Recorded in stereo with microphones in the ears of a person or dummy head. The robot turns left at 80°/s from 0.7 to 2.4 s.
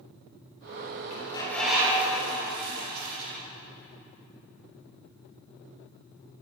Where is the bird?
40° left, 7.5 m; by 3.4 s 60° right, 7.5 m.